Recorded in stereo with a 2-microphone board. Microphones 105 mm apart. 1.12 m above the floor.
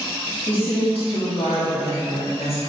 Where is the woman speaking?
55° left (ahead or behind), 1.7 m; by 2.6 s 65° left (ahead or behind), 1.2 m.